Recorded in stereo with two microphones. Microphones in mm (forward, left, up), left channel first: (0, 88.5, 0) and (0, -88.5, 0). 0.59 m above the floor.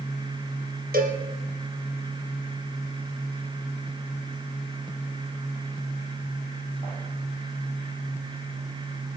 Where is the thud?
I don't hear a thud.